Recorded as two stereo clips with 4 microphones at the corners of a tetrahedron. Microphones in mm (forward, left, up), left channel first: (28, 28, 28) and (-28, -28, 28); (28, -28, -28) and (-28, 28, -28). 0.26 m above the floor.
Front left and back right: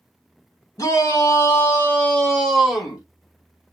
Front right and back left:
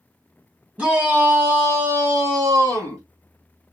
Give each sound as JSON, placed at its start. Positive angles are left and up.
{"t": 0.8, "sound": "a shout", "azimuth_deg": 70, "distance_m": 1.8}